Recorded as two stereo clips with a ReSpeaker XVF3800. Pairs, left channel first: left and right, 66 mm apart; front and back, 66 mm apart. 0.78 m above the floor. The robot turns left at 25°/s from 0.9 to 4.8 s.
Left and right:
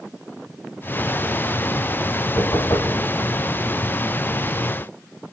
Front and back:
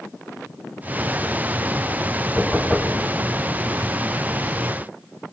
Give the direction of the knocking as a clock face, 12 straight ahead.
9 o'clock.